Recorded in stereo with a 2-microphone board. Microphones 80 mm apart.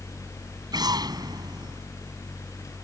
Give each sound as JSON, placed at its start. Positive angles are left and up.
{"t": 0.7, "sound": "an explosion", "side_deg": -60}